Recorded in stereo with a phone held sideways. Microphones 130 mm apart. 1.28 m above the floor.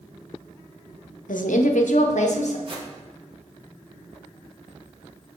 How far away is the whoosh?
About 1.0 m.